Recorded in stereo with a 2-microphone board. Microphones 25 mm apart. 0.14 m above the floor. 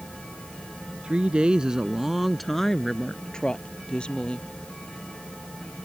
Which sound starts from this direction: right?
A woman speaking, at 1.0 s.